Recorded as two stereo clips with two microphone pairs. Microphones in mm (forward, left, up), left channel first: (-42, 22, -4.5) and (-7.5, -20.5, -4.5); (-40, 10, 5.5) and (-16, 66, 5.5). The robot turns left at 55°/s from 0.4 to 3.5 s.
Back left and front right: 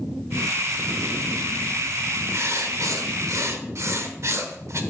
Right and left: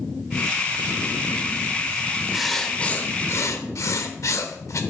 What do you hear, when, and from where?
2.3 s writing: 15° right, 1.0 m; by 4.8 s 80° right, 1.0 m